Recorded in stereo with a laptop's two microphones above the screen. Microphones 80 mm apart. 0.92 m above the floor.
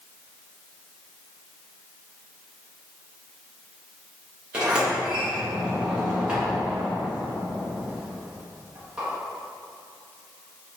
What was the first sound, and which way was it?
A sliding door, 10° right (ahead or behind).